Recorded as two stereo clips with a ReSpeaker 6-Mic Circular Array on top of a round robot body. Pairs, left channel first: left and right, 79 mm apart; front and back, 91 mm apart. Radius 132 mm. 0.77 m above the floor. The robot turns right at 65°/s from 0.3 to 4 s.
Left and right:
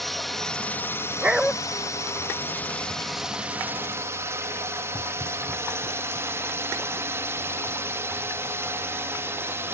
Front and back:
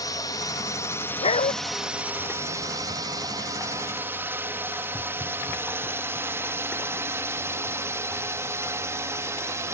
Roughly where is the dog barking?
Ahead.